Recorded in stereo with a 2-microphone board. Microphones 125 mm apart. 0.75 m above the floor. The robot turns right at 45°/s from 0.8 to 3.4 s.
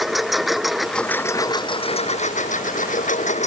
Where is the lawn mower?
Straight ahead; by 3.5 s 115° left.